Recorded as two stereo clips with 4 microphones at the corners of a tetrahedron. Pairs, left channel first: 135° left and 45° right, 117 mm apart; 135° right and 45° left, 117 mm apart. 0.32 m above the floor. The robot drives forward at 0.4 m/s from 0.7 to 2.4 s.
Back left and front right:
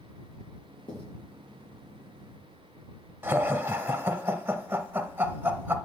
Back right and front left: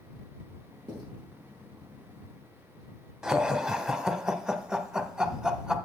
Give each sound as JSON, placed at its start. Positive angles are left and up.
{"t": 0.9, "sound": "writing", "azimuth_deg": 95, "distance_m": 4.5}
{"t": 3.2, "sound": "laughter", "azimuth_deg": -30, "distance_m": 0.9}